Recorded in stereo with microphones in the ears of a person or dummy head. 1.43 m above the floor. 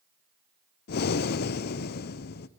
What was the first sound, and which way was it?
Breathing, 55° left (ahead or behind).